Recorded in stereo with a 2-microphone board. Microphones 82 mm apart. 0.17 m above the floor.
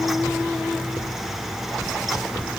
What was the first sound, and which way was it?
Only background noise.